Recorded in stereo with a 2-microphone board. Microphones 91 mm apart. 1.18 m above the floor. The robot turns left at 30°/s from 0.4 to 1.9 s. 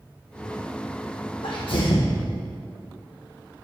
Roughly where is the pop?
I don't hear a pop.